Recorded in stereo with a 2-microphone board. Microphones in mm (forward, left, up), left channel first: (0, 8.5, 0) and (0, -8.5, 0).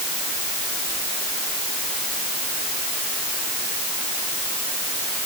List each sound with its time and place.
Only background noise.